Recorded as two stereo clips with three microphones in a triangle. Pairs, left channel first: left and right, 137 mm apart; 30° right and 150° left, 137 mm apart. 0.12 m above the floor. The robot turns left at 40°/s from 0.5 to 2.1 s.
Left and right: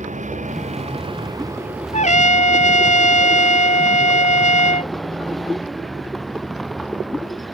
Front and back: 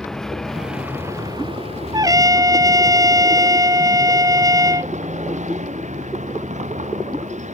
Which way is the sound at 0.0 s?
115° right.